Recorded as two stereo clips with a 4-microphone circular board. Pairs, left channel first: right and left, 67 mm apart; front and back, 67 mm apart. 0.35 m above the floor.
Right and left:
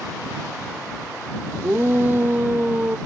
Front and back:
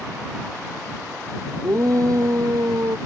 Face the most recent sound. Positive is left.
turn(degrees=155)